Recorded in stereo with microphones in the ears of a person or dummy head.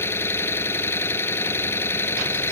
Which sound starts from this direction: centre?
An engine running, at 0.0 s.